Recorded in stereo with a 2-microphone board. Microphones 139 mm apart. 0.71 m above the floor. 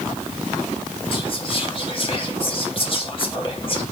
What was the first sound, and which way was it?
Whispering, 40° left (ahead or behind).